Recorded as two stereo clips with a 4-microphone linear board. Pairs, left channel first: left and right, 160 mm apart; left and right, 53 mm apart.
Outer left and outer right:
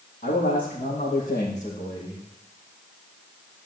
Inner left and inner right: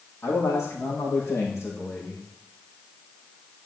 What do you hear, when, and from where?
0.2 s a man speaking: 60° left (ahead or behind), 4.5 m; by 2.3 s 40° left (ahead or behind), 5.5 m